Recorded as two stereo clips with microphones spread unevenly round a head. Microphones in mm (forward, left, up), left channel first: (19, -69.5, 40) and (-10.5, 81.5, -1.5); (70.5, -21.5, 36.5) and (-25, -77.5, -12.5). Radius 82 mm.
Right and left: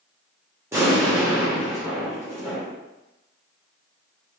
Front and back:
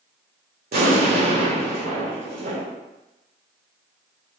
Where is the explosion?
Straight behind, 1.4 m.